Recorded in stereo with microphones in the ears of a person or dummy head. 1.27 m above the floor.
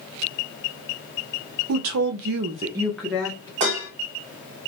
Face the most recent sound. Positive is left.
turn(degrees=-35)  # may be behind; listen again after turning